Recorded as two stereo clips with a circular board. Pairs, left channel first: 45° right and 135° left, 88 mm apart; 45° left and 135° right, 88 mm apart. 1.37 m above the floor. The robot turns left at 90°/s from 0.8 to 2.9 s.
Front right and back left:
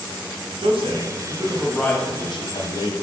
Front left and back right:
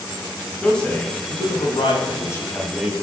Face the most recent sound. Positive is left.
turn(degrees=-65)